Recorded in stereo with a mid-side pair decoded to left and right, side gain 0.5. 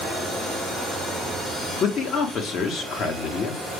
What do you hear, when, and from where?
1.8 s a man speaking: 60° left, 1.4 m